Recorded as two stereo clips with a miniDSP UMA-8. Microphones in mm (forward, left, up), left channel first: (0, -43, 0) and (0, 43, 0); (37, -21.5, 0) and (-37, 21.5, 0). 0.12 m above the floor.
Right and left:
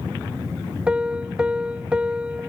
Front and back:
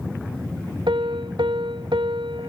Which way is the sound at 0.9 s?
165° left.